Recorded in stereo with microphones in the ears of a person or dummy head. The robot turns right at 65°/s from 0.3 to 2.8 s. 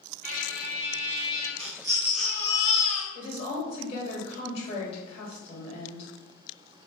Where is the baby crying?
30° right, 1.0 m; by 3.0 s 50° left, 1.0 m.